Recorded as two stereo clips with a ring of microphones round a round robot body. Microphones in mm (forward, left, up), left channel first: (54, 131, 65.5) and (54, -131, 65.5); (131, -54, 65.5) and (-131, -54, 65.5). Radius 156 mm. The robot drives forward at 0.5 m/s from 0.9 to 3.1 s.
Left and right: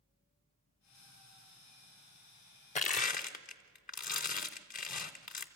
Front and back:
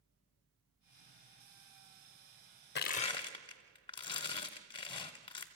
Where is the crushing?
40° left, 0.6 m; by 5.5 s 60° left, 0.6 m.